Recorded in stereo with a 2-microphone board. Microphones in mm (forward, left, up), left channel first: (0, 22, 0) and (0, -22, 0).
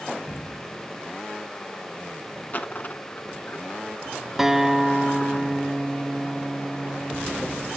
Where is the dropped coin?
40° left (ahead or behind), 1.0 m.